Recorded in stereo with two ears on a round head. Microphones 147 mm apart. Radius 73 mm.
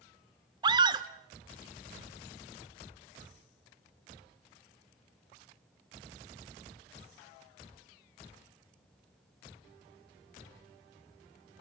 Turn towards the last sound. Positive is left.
turn(degrees=-25)  # may be behind; listen again after turning